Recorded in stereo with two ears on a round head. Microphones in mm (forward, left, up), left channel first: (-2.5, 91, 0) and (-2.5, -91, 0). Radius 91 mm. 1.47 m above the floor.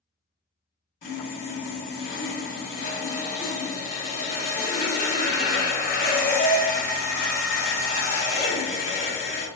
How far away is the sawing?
About 1.1 m.